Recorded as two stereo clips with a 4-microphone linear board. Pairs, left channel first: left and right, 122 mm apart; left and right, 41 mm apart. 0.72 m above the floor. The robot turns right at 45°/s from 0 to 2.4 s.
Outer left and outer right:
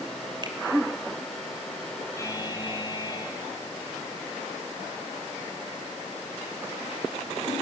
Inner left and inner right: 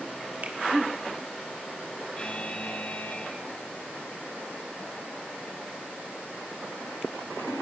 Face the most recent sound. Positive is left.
turn(degrees=35)  # may be behind; listen again after turning